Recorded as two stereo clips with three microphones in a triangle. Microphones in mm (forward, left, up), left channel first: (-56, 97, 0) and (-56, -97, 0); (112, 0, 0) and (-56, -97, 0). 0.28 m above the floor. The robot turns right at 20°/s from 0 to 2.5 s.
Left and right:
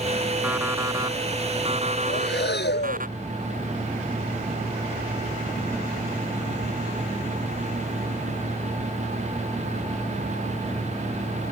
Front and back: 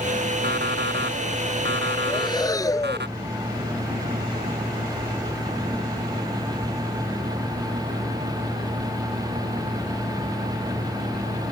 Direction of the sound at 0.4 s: 170° right.